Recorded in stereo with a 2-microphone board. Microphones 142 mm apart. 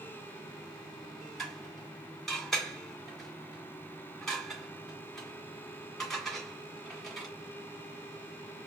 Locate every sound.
1.4 s dishes clattering: centre (ahead or behind), 1.7 m